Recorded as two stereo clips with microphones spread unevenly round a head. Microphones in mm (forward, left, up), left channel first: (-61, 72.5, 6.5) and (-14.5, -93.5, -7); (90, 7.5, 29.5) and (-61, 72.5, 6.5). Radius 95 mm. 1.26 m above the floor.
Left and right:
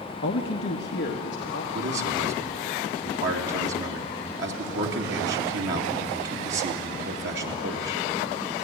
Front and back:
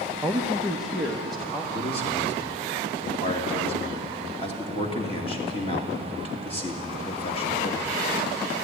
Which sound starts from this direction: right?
A man speaking, at 1.7 s.